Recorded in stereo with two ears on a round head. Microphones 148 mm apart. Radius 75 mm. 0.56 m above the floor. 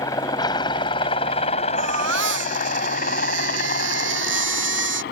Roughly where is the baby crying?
Right.